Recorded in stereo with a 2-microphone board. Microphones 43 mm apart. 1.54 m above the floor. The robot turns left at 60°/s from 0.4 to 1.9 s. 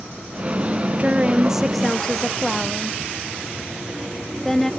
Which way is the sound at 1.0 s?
35° right (ahead or behind).